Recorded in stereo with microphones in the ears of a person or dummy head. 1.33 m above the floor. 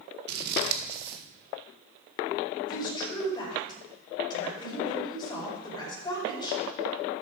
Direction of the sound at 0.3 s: 55° right (ahead or behind).